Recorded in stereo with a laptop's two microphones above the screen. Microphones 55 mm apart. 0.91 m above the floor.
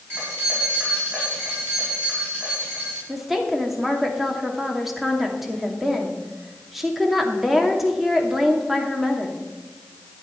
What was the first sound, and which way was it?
Keys jangling, 35° right (ahead or behind).